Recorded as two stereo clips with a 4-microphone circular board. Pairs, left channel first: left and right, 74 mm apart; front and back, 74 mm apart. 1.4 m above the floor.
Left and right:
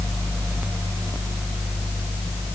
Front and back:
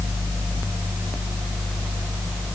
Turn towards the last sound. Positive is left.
No sound to turn to.